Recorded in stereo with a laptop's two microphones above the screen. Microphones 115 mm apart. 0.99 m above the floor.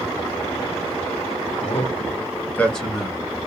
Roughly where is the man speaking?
Left.